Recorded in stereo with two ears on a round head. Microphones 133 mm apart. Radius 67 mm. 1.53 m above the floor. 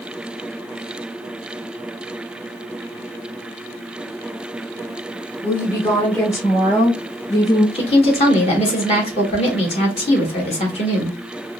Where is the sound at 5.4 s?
10° left (ahead or behind), 0.6 m; by 7.7 s 20° left (ahead or behind), 2 m.